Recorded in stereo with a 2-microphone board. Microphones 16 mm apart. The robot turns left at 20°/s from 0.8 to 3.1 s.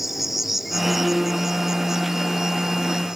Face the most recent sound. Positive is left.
turn(degrees=-55)